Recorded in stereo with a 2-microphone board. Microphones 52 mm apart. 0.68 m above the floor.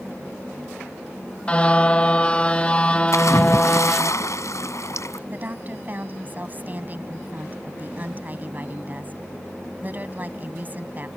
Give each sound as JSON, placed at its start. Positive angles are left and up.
{"t": 1.5, "sound": "a car horn", "side_deg": 20}
{"t": 3.1, "sound": "a splash", "side_deg": 75}
{"t": 5.3, "sound": "a woman speaking", "side_deg": -35}